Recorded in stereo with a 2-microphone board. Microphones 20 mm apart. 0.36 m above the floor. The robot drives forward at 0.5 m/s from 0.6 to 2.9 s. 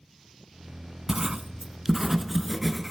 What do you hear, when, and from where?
1.1 s writing: 25° right (ahead or behind), 0.9 m; by 2.9 s 15° right (ahead or behind), 1.8 m